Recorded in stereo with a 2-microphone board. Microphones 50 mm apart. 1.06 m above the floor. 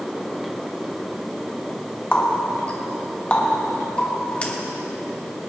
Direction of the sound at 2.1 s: 25° left (ahead or behind).